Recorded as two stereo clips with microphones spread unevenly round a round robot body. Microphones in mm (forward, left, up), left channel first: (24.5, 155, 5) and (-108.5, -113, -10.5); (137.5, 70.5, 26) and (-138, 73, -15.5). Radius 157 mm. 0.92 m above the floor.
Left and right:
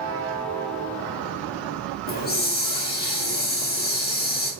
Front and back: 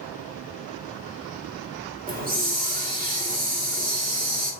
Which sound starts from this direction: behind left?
A hiss, at 2.1 s.